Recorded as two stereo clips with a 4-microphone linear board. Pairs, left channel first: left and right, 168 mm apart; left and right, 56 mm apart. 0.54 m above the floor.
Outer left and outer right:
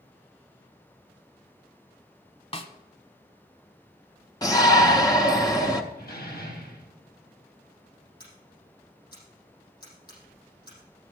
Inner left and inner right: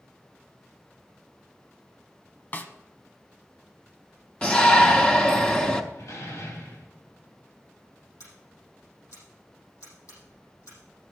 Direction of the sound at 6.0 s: 75° left (ahead or behind).